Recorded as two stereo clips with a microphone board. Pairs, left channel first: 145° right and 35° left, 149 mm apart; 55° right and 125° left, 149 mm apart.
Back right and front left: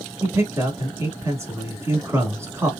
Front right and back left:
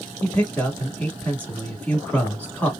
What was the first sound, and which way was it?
A man speaking, 5° left.